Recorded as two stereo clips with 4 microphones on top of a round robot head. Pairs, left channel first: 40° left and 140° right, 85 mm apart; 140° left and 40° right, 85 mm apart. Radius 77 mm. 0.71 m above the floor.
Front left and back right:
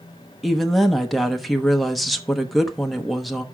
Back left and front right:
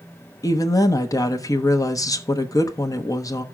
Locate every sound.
0.4 s a woman speaking: 125° left, 1.0 m